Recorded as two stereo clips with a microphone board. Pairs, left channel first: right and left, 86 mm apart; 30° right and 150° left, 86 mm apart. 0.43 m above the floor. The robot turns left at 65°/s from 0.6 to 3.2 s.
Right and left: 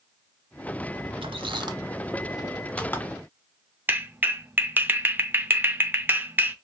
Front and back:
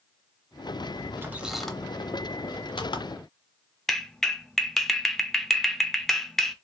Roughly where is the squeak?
Left.